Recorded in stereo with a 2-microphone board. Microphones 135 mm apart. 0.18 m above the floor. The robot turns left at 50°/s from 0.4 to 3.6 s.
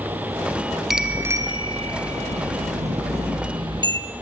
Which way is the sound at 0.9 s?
5° right.